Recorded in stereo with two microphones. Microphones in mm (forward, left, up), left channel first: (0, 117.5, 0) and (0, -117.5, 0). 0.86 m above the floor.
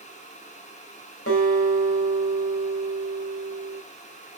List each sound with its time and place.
1.3 s a guitar: 70° left (ahead or behind), 3 m